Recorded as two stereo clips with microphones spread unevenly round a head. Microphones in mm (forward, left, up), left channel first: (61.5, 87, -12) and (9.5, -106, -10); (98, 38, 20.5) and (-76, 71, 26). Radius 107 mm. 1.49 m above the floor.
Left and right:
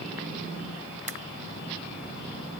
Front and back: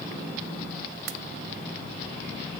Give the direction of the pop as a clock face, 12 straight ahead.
5 o'clock.